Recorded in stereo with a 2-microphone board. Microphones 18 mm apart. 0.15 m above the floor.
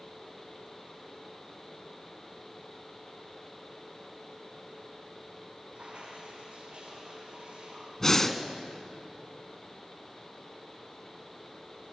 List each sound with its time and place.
5.8 s dripping: 75° right (ahead or behind), 8.5 m
8.0 s breathing: 20° left (ahead or behind), 1.2 m